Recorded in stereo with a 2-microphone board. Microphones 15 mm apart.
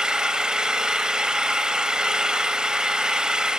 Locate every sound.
0.0 s an engine running: 55° right (ahead or behind), 2.5 m